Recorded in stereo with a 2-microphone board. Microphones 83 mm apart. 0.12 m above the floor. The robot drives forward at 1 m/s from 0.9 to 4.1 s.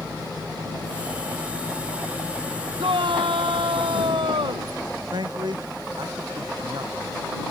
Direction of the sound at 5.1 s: 60° right (ahead or behind).